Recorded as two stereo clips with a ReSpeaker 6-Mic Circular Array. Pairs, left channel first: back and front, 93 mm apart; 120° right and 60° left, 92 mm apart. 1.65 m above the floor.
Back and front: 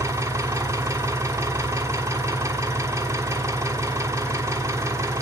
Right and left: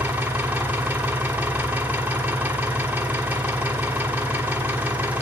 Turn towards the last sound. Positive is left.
turn(degrees=5)